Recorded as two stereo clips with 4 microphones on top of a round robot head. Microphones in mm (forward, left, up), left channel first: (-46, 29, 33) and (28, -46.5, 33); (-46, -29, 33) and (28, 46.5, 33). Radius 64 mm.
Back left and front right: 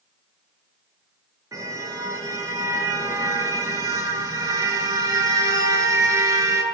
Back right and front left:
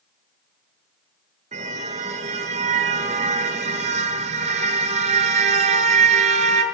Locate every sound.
1.5 s a car horn: 20° left, 7 m